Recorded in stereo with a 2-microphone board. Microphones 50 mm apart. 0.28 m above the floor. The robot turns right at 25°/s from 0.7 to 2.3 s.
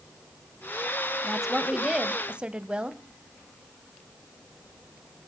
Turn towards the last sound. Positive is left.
turn(degrees=-20)  # may be behind; listen again after turning